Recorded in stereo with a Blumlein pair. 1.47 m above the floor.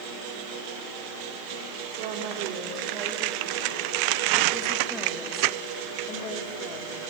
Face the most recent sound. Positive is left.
turn(degrees=35)